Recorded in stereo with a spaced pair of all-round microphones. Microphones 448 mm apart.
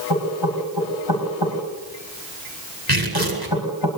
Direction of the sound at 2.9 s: 55° right (ahead or behind).